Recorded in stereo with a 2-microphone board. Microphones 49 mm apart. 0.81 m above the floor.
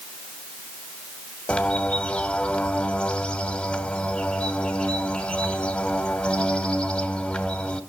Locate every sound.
1.5 s a bird: 20° left (ahead or behind), 1.2 m